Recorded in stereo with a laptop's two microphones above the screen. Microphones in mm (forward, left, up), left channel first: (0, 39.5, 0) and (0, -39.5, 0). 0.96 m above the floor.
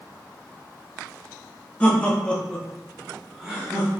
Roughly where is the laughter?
Centre.